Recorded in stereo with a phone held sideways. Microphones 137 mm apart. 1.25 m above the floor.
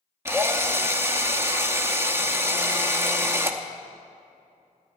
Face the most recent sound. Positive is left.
turn(degrees=-20)  # may be behind; listen again after turning